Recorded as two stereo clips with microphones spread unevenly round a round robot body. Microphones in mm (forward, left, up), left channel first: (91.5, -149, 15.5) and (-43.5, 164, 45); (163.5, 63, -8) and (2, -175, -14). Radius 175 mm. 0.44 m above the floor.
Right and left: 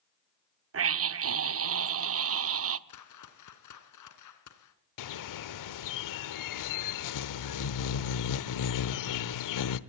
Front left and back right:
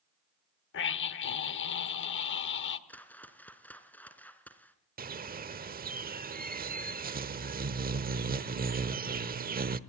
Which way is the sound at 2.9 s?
30° right.